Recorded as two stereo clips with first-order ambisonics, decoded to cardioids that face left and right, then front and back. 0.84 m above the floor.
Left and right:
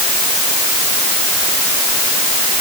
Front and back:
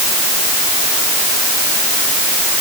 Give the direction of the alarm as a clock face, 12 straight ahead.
No alarm in this recording.